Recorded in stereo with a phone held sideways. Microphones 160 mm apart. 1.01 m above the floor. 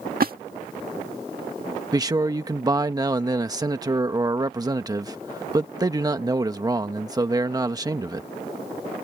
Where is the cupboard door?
I don't hear a cupboard door.